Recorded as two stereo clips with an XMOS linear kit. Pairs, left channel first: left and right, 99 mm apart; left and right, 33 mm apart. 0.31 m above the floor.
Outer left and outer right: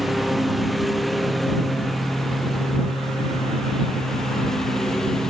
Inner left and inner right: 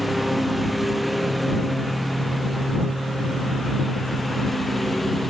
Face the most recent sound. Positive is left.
turn(degrees=5)  # may be behind; listen again after turning